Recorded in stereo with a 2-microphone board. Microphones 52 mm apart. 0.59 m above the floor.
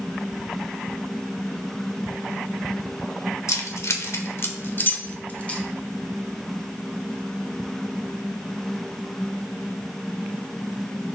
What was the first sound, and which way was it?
Keys jangling, 70° left (ahead or behind).